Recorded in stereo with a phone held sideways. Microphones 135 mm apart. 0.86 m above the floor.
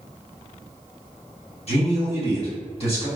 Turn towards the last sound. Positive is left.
turn(degrees=50)  # may be behind; listen again after turning